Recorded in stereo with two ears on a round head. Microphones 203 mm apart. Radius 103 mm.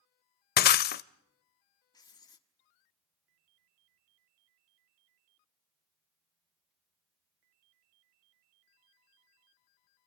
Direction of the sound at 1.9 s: 20° left (ahead or behind).